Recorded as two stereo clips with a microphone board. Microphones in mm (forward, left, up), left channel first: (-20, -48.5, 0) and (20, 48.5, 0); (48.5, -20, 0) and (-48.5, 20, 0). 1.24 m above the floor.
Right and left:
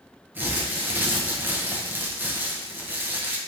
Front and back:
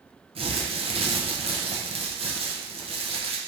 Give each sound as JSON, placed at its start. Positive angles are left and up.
{"t": 0.3, "sound": "crumpling", "azimuth_deg": 140, "distance_m": 0.7}